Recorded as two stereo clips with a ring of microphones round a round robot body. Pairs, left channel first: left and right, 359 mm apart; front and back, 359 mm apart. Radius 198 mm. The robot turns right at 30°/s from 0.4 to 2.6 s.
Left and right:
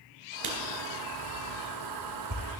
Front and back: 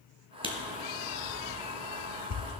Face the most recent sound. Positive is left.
turn(degrees=-40)